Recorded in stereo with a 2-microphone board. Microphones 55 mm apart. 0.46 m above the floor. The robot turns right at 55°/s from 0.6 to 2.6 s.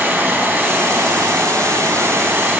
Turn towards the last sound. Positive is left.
turn(degrees=-30)